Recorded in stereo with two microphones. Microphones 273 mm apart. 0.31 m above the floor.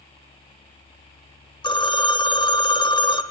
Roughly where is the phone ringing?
Centre.